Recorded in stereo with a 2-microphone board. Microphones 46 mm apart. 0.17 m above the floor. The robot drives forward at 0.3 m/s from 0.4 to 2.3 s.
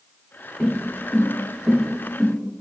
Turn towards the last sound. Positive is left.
turn(degrees=-20)  # may be behind; listen again after turning